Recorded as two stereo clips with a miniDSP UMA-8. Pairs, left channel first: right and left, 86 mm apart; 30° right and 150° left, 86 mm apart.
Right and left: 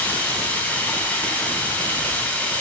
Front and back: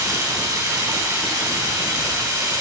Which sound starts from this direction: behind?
Running water, at 0.0 s.